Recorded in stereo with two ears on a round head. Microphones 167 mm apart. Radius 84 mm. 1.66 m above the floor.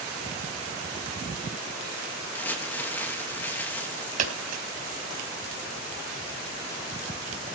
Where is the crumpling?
10° left (ahead or behind), 3 m.